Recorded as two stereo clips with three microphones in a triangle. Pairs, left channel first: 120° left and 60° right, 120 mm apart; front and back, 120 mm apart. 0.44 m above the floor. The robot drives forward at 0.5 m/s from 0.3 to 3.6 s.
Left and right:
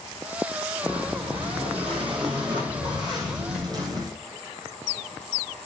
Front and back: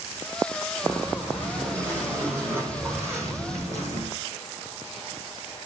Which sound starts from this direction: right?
Breathing, at 0.8 s.